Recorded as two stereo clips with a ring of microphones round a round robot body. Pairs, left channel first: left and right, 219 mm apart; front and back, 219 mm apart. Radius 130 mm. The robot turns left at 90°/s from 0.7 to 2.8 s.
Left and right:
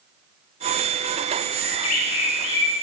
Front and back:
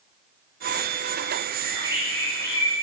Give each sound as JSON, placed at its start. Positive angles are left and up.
{"t": 1.6, "sound": "a bird", "azimuth_deg": 130, "distance_m": 3.0}